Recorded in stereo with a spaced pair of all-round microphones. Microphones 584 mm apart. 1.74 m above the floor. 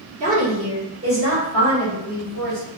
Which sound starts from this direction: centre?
A woman speaking, at 0.2 s.